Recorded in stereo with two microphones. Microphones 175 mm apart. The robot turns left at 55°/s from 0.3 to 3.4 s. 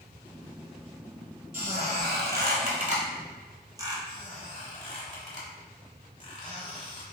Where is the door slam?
No door slam in this recording.